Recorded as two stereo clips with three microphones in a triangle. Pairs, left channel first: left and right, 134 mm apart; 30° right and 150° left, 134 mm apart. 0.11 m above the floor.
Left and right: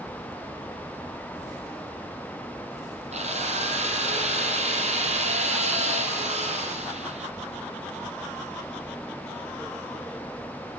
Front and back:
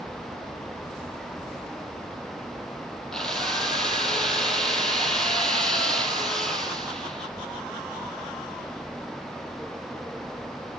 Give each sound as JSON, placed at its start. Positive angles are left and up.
{"t": 3.1, "sound": "a drill", "azimuth_deg": -115, "distance_m": 4.5}